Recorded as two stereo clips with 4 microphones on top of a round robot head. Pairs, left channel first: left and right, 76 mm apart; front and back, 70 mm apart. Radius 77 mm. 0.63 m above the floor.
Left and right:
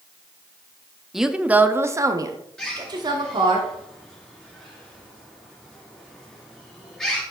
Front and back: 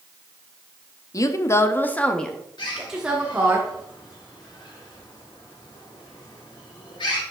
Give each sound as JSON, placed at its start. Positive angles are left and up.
{"t": 1.1, "sound": "a woman speaking", "azimuth_deg": -5, "distance_m": 0.9}
{"t": 2.6, "sound": "a bird", "azimuth_deg": 10, "distance_m": 3.5}